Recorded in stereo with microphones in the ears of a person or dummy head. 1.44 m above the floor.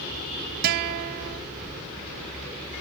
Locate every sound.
0.6 s a guitar: 55° right (ahead or behind), 0.7 m